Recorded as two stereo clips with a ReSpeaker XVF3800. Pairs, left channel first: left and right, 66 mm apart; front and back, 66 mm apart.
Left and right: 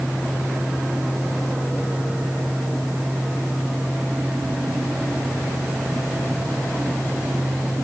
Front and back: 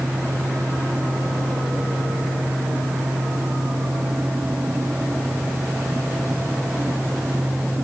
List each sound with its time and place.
Only background noise.